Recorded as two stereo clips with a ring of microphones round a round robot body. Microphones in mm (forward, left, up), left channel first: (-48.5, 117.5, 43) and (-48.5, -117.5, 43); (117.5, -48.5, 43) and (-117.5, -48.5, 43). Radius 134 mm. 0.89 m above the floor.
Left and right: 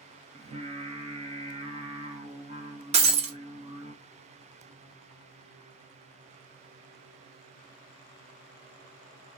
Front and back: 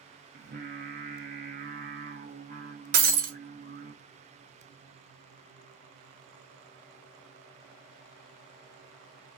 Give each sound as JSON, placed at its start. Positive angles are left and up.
{"t": 0.3, "sound": "singing", "azimuth_deg": -145, "distance_m": 0.9}
{"t": 2.9, "sound": "breaking glass", "azimuth_deg": -145, "distance_m": 0.5}